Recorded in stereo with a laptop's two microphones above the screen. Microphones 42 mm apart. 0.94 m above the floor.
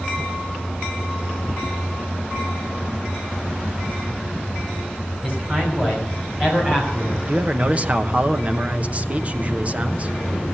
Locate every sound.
5.2 s a man speaking: 35° right (ahead or behind), 5 m
7.2 s a man speaking: 35° right (ahead or behind), 0.8 m